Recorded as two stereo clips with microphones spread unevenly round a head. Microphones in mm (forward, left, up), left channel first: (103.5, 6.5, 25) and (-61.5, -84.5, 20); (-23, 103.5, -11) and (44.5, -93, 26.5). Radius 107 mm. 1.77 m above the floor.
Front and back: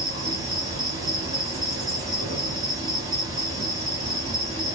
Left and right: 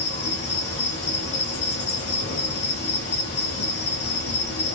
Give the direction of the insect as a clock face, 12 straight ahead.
7 o'clock.